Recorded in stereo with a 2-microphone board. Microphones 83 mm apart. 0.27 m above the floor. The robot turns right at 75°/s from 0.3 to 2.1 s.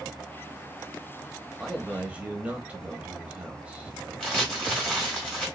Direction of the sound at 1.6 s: Centre (ahead or behind).